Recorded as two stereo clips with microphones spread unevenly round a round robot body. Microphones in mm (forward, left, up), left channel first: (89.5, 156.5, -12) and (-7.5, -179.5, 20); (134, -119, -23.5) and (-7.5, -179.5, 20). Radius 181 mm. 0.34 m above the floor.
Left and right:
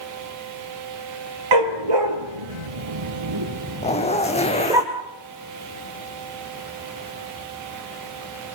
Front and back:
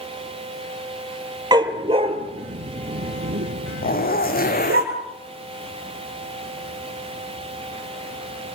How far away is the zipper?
About 4.5 m.